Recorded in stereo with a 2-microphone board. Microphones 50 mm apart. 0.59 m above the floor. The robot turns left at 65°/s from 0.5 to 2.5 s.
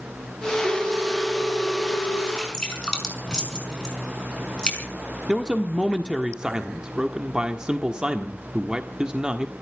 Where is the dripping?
10° left (ahead or behind), 5 m; by 4.9 s 15° left (ahead or behind), 5 m.